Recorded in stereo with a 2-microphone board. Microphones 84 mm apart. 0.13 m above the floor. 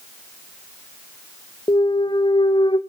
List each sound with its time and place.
1.7 s a clunk: 85° left, 1.0 m